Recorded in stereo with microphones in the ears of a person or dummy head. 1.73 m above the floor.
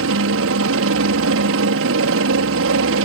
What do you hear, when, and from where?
0.0 s a helicopter: 70° right (ahead or behind)